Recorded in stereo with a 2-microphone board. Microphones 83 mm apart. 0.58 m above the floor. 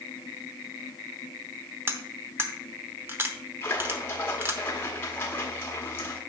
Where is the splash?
25° left (ahead or behind), 1.5 m.